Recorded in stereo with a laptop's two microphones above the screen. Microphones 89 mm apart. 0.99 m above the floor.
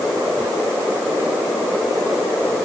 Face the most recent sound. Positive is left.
No sound to turn to.